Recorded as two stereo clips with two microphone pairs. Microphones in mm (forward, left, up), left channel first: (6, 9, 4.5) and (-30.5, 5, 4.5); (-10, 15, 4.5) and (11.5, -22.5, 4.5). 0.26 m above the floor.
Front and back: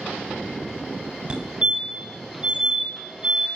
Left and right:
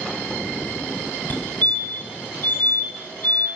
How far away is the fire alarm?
About 2.5 m.